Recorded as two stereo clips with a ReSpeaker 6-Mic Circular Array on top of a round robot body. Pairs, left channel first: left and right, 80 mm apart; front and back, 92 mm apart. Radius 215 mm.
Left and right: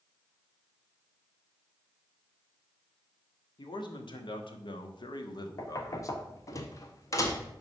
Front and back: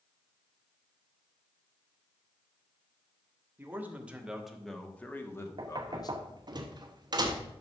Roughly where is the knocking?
Behind left.